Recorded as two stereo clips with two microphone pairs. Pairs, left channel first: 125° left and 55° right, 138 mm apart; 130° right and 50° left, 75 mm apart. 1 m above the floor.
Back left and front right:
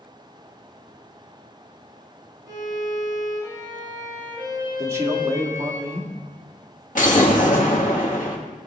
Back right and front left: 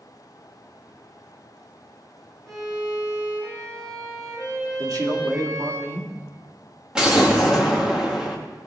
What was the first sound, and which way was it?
A violin, 5° left.